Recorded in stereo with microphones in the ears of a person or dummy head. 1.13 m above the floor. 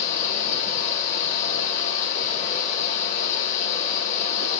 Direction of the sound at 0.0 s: 40° left (ahead or behind).